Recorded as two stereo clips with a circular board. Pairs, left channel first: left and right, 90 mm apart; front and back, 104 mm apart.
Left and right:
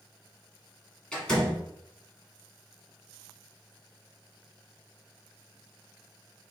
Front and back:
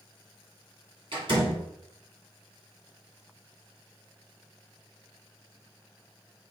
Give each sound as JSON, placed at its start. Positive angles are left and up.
{"t": 1.1, "sound": "a door slam", "azimuth_deg": 170, "distance_m": 1.7}